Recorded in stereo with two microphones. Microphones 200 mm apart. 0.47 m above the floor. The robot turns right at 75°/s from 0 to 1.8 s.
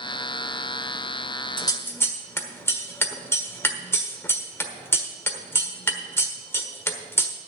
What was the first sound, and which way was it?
Scissors, 25° left (ahead or behind).